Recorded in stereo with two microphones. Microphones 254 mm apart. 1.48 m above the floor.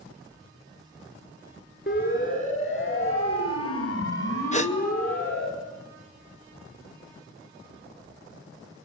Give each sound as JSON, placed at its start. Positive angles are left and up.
{"t": 1.9, "sound": "a siren", "side_deg": 45, "distance_m": 7.0}
{"t": 4.5, "sound": "a gasp", "side_deg": 25, "distance_m": 0.9}